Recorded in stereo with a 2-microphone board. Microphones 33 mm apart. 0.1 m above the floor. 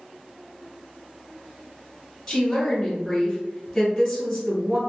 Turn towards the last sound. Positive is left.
turn(degrees=5)  # may be behind; listen again after turning